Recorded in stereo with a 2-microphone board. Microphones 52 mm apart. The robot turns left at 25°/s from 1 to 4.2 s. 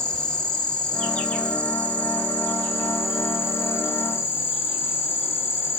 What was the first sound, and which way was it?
An insect, 165° left.